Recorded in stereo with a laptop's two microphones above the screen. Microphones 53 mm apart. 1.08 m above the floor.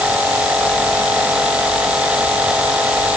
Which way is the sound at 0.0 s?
25° right (ahead or behind).